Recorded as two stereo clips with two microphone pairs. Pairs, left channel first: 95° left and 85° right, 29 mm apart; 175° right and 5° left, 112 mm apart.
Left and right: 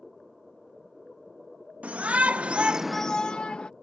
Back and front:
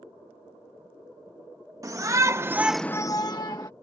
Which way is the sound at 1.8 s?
55° right.